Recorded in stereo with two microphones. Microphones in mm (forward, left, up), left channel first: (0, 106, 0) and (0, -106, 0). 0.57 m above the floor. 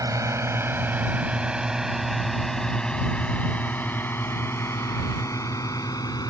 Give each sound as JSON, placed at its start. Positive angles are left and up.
{"t": 0.0, "sound": "a drone", "side_deg": -15}